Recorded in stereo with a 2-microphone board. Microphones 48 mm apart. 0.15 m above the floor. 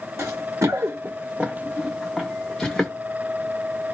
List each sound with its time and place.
0.2 s running footsteps: 80° right, 0.7 m; by 2.9 s 10° left (ahead or behind), 1.3 m